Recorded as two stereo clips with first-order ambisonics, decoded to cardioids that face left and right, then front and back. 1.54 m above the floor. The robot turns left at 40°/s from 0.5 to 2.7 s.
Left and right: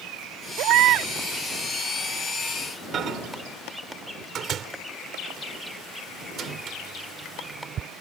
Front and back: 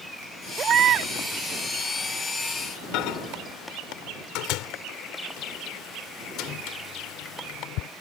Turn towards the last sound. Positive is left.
turn(degrees=-30)